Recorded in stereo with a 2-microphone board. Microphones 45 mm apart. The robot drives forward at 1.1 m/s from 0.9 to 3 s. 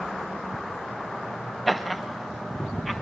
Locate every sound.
1.7 s laughter: centre (ahead or behind), 0.9 m